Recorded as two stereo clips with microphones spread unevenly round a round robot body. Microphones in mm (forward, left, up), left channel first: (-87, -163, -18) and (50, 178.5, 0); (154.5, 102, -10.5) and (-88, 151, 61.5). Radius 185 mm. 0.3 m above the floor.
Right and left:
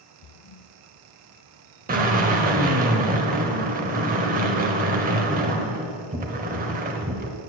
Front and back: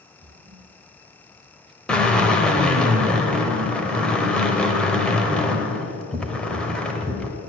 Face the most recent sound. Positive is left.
turn(degrees=30)